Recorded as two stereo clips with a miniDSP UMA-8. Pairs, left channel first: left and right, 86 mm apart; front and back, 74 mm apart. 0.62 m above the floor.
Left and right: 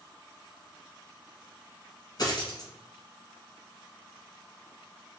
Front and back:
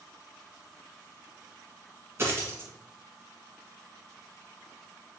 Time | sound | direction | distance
2.2 | a dropped coin | 125° left | 1.2 m